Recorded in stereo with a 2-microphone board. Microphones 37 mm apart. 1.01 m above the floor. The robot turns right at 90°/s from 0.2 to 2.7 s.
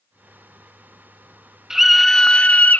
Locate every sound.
1.7 s a scream: 25° right, 0.6 m; by 2.8 s 65° left, 0.6 m